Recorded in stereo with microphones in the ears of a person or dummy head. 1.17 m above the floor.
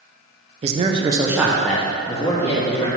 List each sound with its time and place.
0.6 s a man speaking: 30° right (ahead or behind), 0.5 m; by 2.9 s 25° left (ahead or behind), 1.2 m